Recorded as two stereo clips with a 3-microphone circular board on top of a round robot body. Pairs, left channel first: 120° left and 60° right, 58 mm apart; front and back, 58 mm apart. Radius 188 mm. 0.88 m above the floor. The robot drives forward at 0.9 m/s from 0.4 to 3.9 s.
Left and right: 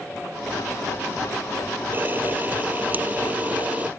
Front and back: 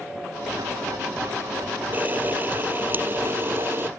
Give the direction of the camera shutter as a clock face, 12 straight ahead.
4 o'clock.